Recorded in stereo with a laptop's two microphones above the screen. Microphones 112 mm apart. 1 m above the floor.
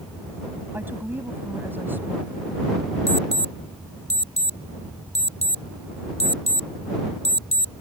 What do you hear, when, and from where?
0.7 s a woman speaking: 20° right (ahead or behind)
3.1 s an alarm: 80° left